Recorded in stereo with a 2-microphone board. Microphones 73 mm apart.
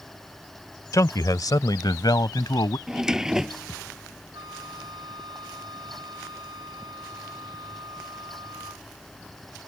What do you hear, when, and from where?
0.9 s a man speaking: 50° left (ahead or behind); by 2.8 s 70° left (ahead or behind)
2.9 s a drawer: 10° right (ahead or behind)
4.3 s a flute: 75° right (ahead or behind)